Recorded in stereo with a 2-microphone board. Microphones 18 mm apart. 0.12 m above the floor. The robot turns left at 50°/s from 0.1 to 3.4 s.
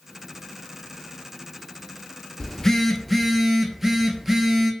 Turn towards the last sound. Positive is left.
turn(degrees=-5)